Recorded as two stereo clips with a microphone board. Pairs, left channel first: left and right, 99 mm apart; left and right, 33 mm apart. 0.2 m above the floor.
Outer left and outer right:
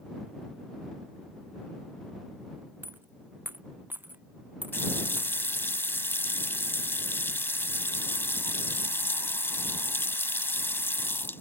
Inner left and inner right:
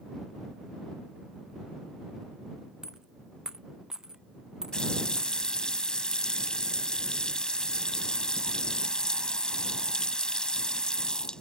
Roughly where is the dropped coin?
Centre.